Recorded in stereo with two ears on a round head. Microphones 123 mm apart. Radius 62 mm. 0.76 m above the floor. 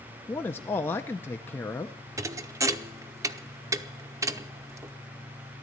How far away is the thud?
About 0.7 m.